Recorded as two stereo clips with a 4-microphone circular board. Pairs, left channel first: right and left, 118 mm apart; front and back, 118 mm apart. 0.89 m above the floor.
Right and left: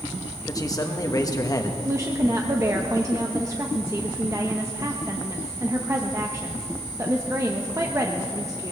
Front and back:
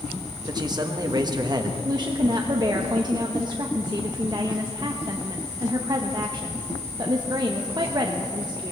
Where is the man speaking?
140° right, 1.2 m.